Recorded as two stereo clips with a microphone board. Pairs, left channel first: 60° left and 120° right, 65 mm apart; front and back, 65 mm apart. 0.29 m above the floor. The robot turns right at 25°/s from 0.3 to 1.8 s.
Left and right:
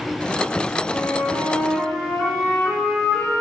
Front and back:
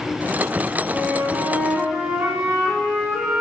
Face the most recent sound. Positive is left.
turn(degrees=130)